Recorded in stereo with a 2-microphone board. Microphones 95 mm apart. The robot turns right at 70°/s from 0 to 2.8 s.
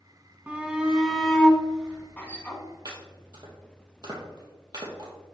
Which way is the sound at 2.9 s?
45° right (ahead or behind).